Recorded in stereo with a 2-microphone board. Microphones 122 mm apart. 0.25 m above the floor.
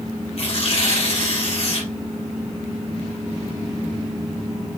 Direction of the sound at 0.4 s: 50° left (ahead or behind).